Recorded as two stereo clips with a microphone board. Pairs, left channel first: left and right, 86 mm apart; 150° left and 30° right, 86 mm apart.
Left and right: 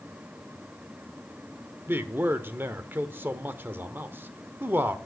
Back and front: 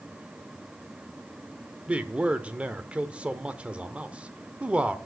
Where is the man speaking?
80° right, 0.9 m.